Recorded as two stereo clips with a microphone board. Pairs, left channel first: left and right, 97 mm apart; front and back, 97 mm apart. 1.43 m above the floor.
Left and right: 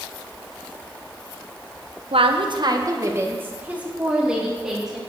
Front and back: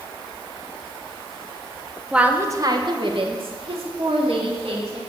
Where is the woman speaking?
100° right, 1.1 m; by 5.0 s 175° right, 3.5 m.